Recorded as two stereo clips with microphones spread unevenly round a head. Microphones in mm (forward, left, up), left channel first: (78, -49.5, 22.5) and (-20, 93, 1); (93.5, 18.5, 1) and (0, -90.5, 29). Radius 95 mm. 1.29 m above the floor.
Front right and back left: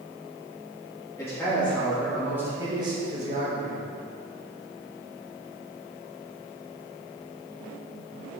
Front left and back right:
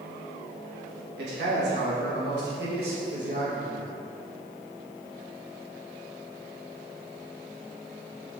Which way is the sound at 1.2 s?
130° right.